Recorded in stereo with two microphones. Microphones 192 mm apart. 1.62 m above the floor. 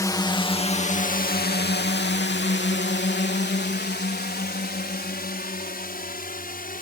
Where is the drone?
15° left (ahead or behind); by 6.8 s 50° left (ahead or behind).